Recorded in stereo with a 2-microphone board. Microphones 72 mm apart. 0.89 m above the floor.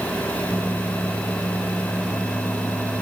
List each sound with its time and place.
Only background noise.